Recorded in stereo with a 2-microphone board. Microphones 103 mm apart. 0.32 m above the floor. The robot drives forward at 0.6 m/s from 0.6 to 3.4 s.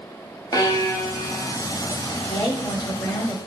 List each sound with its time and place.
0.5 s a violin: 40° left (ahead or behind), 1.8 m; by 1.5 s 30° left (ahead or behind), 2 m
2.3 s a woman speaking: 35° left (ahead or behind), 1.9 m; by 3.4 s 40° left (ahead or behind), 1.7 m